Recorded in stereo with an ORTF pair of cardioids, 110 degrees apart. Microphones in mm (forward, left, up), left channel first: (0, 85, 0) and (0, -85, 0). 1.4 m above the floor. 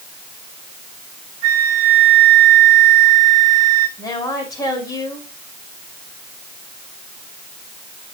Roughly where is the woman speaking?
Ahead.